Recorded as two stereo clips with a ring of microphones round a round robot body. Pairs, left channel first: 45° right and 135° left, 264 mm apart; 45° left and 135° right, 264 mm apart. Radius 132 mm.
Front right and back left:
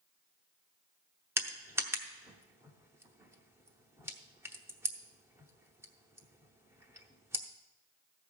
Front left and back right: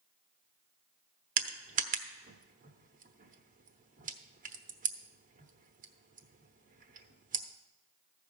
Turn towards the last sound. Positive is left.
turn(degrees=-155)